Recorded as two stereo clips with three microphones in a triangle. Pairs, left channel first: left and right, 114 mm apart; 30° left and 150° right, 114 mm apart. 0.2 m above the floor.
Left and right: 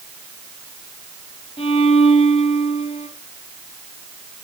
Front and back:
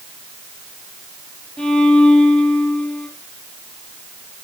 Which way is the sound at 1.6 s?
110° left.